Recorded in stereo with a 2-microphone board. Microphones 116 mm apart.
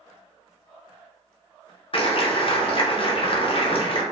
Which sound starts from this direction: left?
A clap, at 1.9 s.